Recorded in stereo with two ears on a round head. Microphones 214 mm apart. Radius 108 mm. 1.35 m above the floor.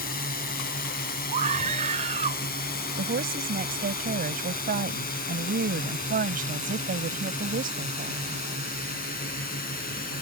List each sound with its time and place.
0.0 s a drone: 40° left (ahead or behind)
1.3 s a scream: 30° right (ahead or behind)
3.0 s a woman speaking: 40° right (ahead or behind)